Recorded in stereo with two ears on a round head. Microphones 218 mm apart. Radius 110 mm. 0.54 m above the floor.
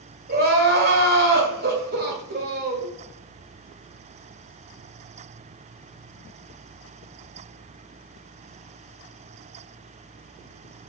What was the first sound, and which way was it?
Crying, 40° right (ahead or behind).